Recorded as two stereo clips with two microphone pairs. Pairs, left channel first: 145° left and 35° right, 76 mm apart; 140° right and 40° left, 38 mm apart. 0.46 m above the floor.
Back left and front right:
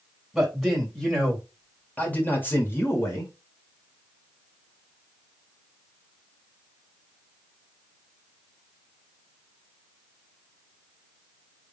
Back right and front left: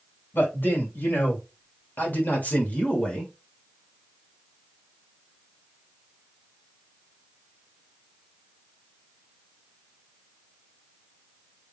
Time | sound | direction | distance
0.3 | a man speaking | 120° right | 2.5 m